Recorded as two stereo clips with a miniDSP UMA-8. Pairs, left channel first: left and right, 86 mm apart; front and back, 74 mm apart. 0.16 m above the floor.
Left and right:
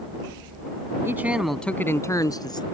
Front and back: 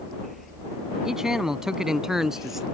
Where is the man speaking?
105° right; by 2.6 s 95° left.